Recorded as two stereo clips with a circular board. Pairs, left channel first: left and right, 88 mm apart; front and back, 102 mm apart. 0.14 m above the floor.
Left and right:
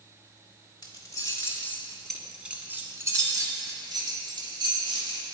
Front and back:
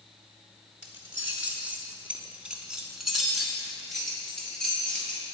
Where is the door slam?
No door slam in this recording.